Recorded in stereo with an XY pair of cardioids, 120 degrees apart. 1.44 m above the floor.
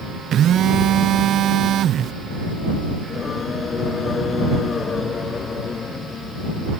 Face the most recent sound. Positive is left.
turn(degrees=35)